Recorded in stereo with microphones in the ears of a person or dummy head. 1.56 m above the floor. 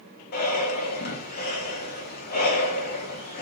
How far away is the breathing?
About 1.1 m.